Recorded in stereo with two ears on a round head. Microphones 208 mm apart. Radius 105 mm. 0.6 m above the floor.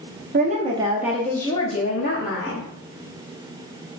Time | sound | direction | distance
0.3 | a woman speaking | 35° right (ahead or behind) | 0.8 m